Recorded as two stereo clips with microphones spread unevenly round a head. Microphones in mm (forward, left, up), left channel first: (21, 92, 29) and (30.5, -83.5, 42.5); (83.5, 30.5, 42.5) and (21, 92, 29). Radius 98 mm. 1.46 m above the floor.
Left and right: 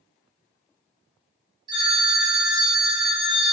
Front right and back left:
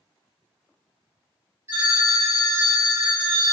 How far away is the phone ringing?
About 0.6 m.